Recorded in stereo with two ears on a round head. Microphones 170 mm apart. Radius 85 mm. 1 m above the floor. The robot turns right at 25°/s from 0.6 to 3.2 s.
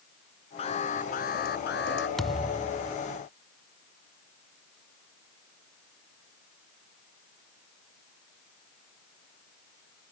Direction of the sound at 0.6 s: 35° left.